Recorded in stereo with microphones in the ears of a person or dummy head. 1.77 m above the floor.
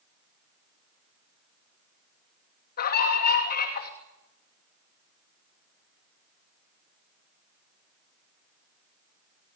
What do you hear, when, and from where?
2.8 s a scream: 50° left (ahead or behind), 3 m